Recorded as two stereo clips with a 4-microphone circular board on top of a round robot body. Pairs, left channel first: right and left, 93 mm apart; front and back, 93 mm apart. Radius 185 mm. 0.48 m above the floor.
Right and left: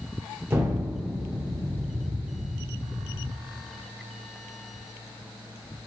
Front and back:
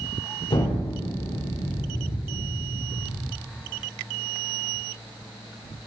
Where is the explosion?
25° left, 2.5 m.